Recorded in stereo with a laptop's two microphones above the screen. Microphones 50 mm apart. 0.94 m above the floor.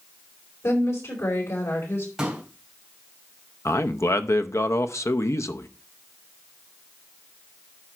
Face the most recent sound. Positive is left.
turn(degrees=70)  # may be behind; listen again after turning